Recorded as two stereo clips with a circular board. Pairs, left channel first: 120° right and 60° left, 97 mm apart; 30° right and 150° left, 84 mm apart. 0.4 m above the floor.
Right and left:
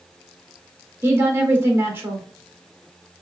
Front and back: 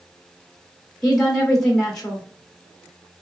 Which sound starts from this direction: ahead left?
A woman speaking, at 1.0 s.